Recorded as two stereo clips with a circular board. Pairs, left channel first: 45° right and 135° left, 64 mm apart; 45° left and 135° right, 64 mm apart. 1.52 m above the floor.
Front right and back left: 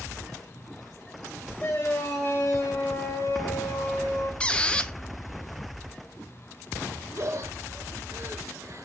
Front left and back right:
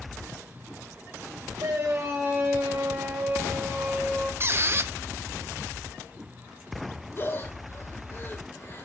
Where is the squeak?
110° right, 0.7 m.